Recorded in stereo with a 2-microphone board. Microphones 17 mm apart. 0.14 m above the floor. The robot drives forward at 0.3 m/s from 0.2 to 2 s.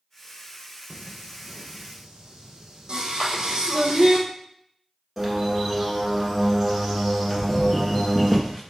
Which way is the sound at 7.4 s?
25° left (ahead or behind).